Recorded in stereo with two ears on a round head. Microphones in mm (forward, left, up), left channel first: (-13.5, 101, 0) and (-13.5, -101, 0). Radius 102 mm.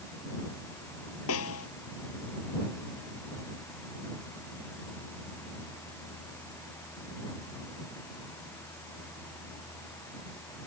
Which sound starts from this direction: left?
A snare drum, at 1.3 s.